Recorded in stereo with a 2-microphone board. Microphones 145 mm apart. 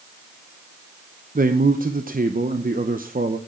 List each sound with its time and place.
1.4 s a man speaking: 75° right (ahead or behind), 0.7 m